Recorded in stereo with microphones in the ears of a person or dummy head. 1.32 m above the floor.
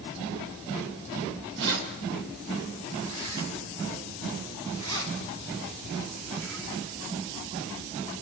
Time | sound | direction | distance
1.6 | keys jangling | 65° right (ahead or behind) | 4 m